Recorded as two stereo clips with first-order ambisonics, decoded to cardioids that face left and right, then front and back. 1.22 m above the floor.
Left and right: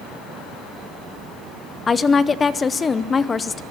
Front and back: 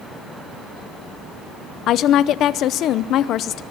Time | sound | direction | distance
1.9 | a woman speaking | 25° left | 0.7 m